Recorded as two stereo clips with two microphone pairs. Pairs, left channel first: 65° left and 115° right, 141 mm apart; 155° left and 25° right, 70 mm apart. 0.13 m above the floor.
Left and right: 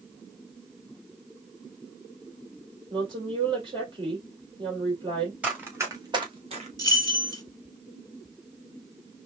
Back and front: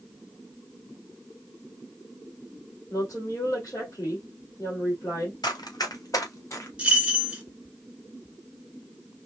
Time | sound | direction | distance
2.9 | a woman speaking | 170° right | 3 m
5.4 | running footsteps | 165° left | 2.5 m
6.8 | keys jangling | 30° left | 1.1 m